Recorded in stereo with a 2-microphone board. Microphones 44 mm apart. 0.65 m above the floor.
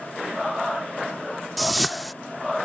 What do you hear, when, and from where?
1.6 s a whoosh: centre (ahead or behind)